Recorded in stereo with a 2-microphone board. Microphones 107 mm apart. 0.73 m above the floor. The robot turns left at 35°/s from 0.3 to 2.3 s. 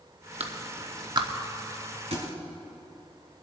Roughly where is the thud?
Right.